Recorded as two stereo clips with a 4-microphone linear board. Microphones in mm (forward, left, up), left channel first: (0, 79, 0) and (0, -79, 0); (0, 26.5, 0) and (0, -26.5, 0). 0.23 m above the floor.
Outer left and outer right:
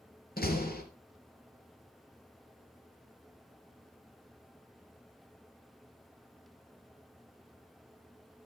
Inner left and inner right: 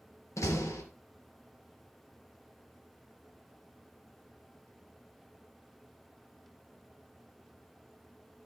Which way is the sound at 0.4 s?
75° left (ahead or behind).